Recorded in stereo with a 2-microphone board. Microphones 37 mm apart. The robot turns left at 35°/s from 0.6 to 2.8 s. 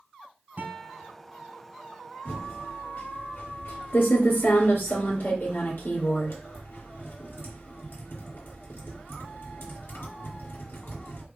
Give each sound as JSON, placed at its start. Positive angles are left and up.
{"t": 0.6, "sound": "a guitar", "side_deg": -35, "distance_m": 1.8}
{"t": 2.2, "sound": "typing on a keyboard", "side_deg": 65, "distance_m": 3.5}